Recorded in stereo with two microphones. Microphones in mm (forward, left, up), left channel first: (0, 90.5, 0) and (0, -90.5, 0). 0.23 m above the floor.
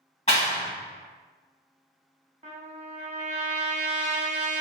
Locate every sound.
0.3 s a clap: 40° left (ahead or behind), 1.4 m
2.4 s a trumpet: 45° right (ahead or behind), 0.7 m